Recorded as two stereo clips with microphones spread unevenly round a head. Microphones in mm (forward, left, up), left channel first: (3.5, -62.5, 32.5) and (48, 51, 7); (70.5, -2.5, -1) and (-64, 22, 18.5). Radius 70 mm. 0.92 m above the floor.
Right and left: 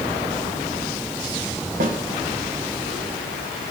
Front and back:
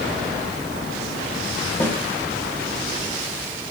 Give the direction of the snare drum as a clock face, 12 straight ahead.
10 o'clock.